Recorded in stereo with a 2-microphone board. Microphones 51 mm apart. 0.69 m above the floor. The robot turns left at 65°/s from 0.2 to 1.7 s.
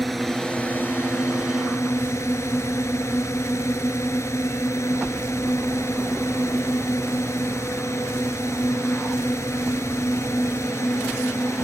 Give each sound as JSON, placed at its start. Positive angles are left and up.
{"t": 0.0, "sound": "a drone", "azimuth_deg": 180}